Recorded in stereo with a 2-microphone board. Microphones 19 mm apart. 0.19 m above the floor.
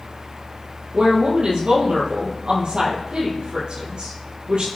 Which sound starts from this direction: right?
A woman speaking, at 0.9 s.